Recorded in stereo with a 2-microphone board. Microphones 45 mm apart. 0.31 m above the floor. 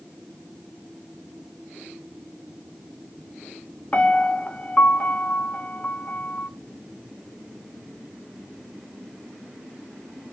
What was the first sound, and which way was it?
A piano, 30° left (ahead or behind).